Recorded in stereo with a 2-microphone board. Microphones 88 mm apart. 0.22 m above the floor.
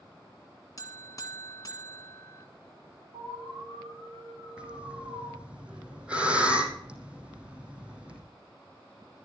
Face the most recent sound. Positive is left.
turn(degrees=-10)  # may be behind; listen again after turning